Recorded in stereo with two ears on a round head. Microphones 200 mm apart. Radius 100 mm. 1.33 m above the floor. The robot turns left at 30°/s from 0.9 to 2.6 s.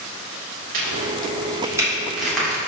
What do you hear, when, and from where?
0.7 s a crack: 40° right (ahead or behind), 2 m; by 2.6 s 10° left (ahead or behind), 2 m